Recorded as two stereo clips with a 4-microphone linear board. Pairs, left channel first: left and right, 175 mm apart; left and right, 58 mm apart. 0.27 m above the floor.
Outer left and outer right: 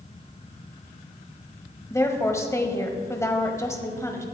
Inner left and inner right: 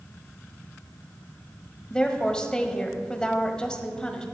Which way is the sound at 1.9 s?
15° left (ahead or behind).